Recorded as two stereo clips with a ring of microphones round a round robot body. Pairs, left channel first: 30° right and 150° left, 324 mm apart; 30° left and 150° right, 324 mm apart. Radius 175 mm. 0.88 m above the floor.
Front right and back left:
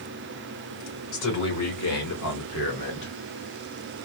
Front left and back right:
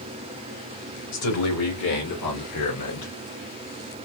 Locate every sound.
1.1 s a man speaking: 5° right, 2.5 m; by 3.1 s 20° left, 1.6 m